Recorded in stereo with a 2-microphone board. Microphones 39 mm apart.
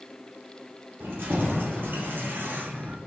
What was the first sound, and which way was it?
Keys jangling, 60° right (ahead or behind).